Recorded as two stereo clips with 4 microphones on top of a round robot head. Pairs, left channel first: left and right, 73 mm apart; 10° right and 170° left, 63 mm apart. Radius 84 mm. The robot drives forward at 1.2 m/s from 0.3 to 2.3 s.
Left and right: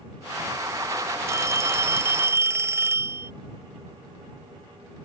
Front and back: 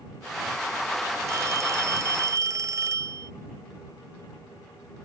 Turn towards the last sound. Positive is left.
turn(degrees=-145)